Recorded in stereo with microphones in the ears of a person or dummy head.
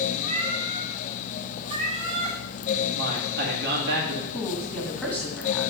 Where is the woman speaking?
Centre (ahead or behind), 2 m.